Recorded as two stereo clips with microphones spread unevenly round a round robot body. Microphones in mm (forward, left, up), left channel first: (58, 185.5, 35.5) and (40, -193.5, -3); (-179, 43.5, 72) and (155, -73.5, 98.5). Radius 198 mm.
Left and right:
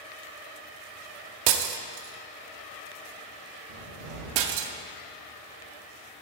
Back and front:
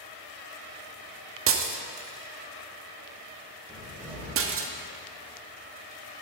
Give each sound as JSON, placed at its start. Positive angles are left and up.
{"t": 1.5, "sound": "breaking glass", "azimuth_deg": -75, "distance_m": 0.8}
{"t": 3.7, "sound": "a cupboard door", "azimuth_deg": -100, "distance_m": 4.0}